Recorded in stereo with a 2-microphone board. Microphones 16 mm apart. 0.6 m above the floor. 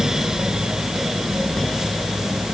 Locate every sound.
Only background noise.